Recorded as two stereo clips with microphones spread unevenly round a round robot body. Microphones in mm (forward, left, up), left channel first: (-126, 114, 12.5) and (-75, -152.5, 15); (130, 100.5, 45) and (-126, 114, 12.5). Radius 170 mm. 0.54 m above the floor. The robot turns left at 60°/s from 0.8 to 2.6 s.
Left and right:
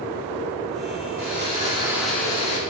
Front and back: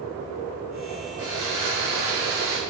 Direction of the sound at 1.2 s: 115° right.